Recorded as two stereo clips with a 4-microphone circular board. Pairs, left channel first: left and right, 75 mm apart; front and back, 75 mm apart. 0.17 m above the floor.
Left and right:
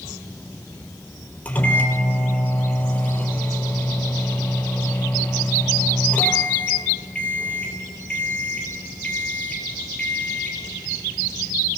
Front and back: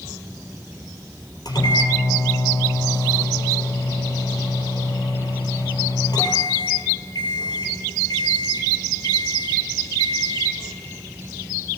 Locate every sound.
1.4 s a microwave: 20° left, 3.5 m